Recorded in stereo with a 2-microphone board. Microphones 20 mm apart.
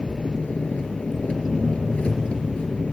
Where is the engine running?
80° left, 2.5 m.